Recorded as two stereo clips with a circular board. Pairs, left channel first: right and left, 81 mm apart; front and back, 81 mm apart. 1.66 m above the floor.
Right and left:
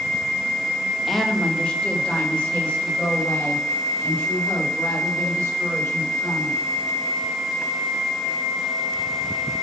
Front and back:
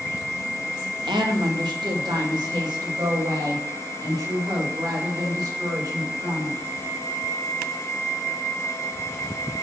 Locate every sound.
1.1 s a woman speaking: straight behind, 1.3 m; by 6.6 s 150° right, 6.5 m